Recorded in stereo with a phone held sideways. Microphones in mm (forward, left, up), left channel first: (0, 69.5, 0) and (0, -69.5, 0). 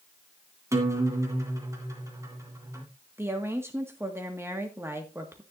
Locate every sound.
0.7 s a guitar: 20° right (ahead or behind), 2.5 m
3.2 s a woman speaking: 20° right (ahead or behind), 1.8 m